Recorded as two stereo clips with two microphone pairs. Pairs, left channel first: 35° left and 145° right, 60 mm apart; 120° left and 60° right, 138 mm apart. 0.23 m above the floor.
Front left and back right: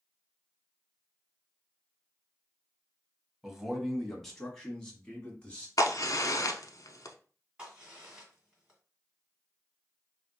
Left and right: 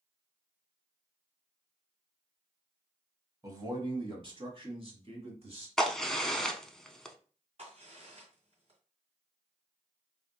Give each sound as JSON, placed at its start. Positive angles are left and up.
{"t": 3.4, "sound": "a man speaking", "azimuth_deg": -75, "distance_m": 1.0}
{"t": 5.8, "sound": "a crack", "azimuth_deg": 30, "distance_m": 0.5}
{"t": 7.6, "sound": "a crack", "azimuth_deg": -75, "distance_m": 1.9}